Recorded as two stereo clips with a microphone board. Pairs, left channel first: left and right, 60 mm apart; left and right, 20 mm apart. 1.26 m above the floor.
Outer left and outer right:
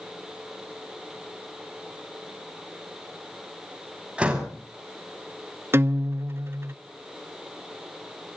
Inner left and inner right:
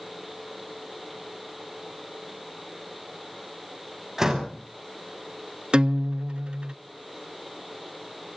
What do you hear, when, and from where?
4.2 s a door slam: 20° right (ahead or behind), 5.5 m
5.7 s a guitar: 45° right (ahead or behind), 0.8 m